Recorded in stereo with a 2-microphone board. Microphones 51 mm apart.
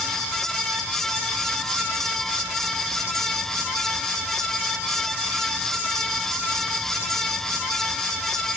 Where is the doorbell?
I don't hear a doorbell.